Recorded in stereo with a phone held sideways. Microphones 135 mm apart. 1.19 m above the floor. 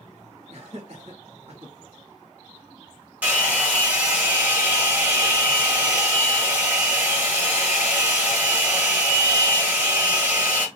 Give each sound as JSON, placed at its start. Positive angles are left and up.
{"t": 0.5, "sound": "laughter", "side_deg": -55, "distance_m": 1.5}
{"t": 3.2, "sound": "a hair dryer", "side_deg": -10, "distance_m": 1.1}